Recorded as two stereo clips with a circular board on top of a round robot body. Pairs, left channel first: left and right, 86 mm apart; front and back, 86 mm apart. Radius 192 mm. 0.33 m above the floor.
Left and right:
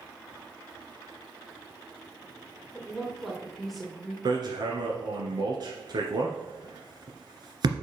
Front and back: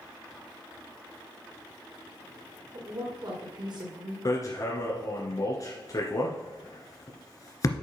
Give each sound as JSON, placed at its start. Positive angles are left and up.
{"t": 2.7, "sound": "a woman speaking", "azimuth_deg": 180, "distance_m": 2.0}
{"t": 4.2, "sound": "hammering", "azimuth_deg": -50, "distance_m": 1.8}